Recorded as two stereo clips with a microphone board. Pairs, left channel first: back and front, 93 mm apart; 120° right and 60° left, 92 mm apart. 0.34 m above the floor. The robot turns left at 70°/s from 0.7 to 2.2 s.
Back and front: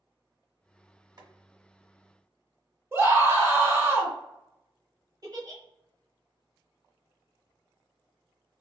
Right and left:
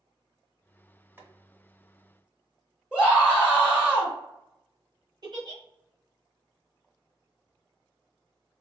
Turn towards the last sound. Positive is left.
turn(degrees=35)